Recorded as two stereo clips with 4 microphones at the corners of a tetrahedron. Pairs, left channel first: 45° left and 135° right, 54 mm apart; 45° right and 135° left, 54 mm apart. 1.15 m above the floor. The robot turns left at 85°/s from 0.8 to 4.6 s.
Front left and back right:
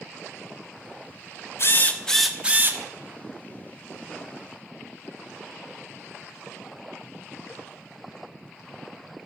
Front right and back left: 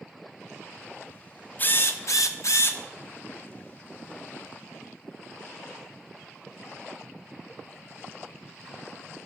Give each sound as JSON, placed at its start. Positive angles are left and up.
{"t": 1.6, "sound": "a drill", "azimuth_deg": 10, "distance_m": 1.0}